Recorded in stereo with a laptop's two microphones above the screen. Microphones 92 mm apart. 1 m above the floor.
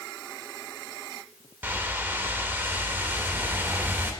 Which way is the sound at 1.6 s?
25° right (ahead or behind).